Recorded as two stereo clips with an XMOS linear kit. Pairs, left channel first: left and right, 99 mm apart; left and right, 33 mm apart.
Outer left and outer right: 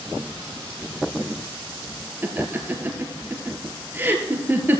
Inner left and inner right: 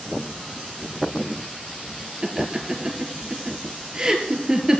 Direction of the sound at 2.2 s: 20° right (ahead or behind).